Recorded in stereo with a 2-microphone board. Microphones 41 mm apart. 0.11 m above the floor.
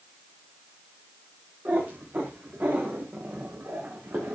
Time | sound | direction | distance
1.6 | a cat meowing | 45° right (ahead or behind) | 5.5 m